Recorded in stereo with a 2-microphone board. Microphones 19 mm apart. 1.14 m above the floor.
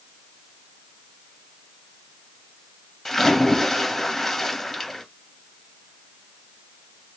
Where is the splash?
5° left (ahead or behind), 1.9 m.